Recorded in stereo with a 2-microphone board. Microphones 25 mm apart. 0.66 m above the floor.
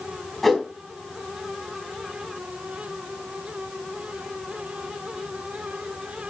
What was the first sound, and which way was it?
A whoosh, 5° left (ahead or behind).